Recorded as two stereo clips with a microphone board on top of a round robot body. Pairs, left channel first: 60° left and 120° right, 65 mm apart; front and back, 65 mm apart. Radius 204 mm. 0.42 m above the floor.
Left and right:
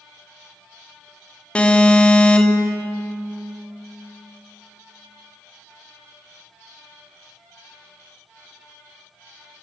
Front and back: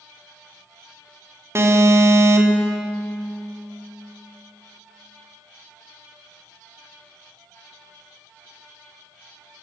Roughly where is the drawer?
No drawer in this recording.